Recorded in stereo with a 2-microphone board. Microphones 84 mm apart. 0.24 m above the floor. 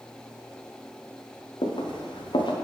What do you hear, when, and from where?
1.6 s footsteps: 75° left (ahead or behind), 1.7 m